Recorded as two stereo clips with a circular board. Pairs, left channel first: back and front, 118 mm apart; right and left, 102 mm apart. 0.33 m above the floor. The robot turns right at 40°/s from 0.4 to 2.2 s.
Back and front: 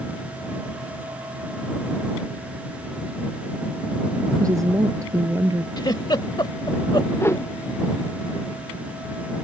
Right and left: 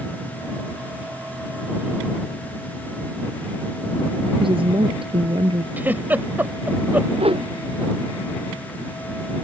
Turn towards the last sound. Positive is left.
turn(degrees=110)